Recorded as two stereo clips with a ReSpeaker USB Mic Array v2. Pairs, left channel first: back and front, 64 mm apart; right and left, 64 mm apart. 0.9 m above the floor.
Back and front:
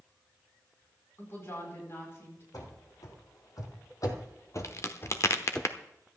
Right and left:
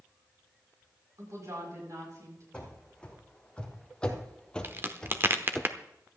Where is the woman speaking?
130° left, 7.5 m.